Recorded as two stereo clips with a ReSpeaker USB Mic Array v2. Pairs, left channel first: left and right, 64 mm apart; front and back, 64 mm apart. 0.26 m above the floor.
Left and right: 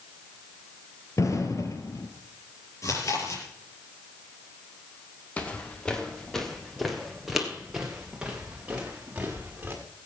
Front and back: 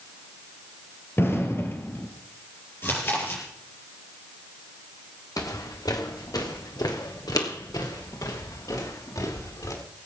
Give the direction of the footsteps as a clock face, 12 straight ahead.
11 o'clock.